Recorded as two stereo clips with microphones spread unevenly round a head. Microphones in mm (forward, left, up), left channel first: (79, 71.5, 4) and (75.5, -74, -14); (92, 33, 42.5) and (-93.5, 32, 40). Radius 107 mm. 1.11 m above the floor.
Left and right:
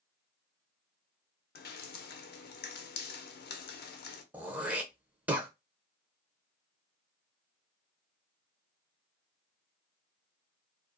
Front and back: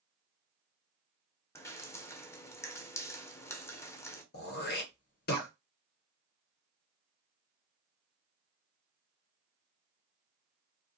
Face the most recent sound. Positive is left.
turn(degrees=-20)